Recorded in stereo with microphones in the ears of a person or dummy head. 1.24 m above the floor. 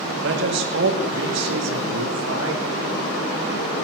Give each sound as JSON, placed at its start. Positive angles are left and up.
{"t": 0.2, "sound": "a man speaking", "side_deg": -65, "distance_m": 2.5}